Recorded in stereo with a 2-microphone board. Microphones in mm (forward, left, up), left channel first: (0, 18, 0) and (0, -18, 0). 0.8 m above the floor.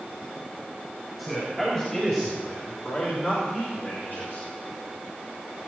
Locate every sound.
1.2 s a man speaking: 10° left (ahead or behind), 4 m; by 4.5 s 65° left (ahead or behind), 3.5 m